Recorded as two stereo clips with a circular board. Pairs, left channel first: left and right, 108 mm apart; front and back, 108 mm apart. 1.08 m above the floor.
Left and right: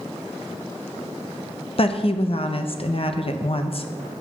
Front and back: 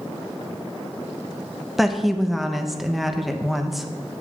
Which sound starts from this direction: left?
A woman speaking, at 1.8 s.